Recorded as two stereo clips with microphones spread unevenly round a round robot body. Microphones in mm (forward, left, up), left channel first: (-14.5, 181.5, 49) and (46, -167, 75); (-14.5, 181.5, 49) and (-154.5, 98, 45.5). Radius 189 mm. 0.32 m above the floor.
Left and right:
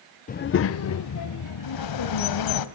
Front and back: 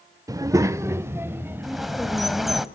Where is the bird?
120° left, 1.6 m.